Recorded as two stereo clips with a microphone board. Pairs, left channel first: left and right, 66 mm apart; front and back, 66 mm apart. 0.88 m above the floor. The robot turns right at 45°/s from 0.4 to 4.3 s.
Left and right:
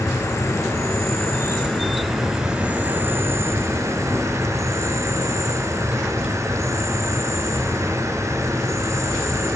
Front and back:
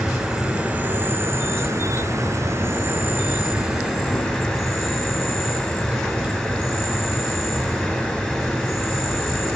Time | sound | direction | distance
0.0 | an insect | 110° left | 1.0 m